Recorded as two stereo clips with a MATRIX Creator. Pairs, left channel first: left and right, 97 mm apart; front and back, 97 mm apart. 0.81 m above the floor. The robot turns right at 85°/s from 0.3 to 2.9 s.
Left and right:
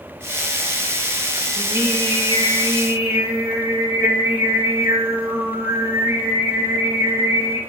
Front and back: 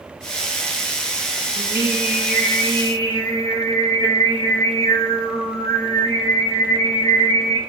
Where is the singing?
145° right, 0.7 m; by 7.6 s 30° right, 0.7 m.